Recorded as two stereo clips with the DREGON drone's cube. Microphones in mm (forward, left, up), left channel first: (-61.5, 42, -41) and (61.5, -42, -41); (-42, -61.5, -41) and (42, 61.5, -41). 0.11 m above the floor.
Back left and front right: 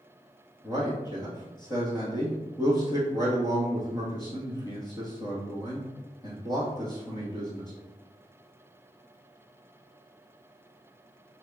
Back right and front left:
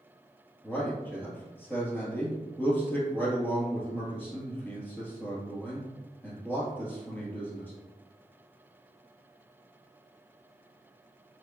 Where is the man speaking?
170° left, 1.2 m.